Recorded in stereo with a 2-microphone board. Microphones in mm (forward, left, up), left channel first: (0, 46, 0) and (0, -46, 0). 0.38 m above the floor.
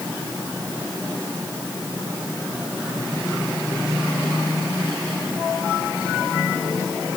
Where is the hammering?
I don't hear hammering.